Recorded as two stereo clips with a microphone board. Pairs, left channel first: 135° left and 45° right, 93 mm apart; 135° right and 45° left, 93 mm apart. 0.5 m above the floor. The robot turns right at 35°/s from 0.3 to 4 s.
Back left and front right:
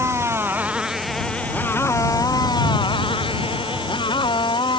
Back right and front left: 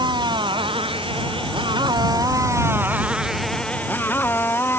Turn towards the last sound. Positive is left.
turn(degrees=160)